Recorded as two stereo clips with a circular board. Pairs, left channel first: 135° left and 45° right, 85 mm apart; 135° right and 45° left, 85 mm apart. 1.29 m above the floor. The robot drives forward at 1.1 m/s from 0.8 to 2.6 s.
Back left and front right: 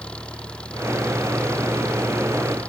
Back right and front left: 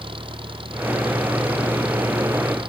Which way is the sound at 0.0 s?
55° left.